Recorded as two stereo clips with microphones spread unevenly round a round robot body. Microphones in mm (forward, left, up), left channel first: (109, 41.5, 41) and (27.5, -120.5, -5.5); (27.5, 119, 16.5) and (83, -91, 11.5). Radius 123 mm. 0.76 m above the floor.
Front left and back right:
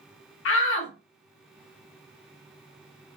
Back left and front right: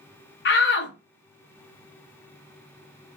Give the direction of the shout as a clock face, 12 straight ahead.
9 o'clock.